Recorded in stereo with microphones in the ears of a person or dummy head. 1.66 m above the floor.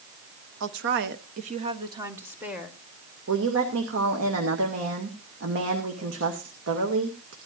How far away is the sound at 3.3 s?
About 2.5 m.